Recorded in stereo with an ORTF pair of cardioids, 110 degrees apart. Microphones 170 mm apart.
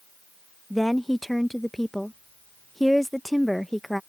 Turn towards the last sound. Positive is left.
turn(degrees=0)